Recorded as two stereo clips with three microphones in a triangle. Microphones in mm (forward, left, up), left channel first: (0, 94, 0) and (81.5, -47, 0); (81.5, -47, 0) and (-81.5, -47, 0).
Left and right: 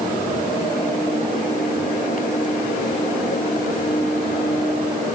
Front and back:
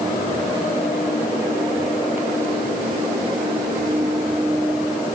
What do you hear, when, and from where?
Only background noise.